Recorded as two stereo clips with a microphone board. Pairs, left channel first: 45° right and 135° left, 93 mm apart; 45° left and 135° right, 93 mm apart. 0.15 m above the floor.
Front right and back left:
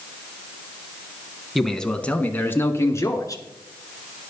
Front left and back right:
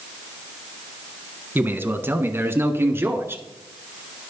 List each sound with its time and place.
1.6 s a man speaking: 135° right, 1.0 m; by 3.4 s 80° right, 1.5 m